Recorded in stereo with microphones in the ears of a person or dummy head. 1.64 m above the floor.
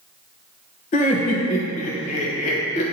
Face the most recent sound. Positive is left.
turn(degrees=35)  # may be behind; listen again after turning